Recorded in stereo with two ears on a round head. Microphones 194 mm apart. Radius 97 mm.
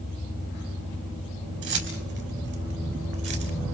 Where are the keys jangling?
55° right (ahead or behind), 5 m; by 3.5 s 60° right (ahead or behind), 4 m.